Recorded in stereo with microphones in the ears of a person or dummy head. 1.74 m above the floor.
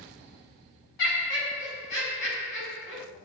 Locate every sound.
1.0 s laughter: 60° left (ahead or behind), 1.5 m